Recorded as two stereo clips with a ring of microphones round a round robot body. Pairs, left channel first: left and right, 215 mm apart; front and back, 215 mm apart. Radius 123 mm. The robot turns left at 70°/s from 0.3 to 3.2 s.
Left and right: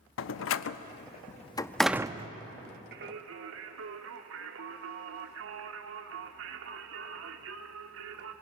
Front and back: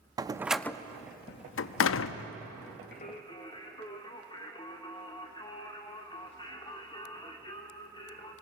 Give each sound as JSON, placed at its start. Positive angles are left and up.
{"t": 0.2, "sound": "a door slam", "azimuth_deg": 110, "distance_m": 0.6}
{"t": 2.9, "sound": "singing", "azimuth_deg": -50, "distance_m": 1.3}